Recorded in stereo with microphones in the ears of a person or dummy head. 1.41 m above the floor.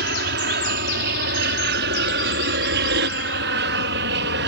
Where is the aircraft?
55° right (ahead or behind); by 4.5 s 60° right (ahead or behind).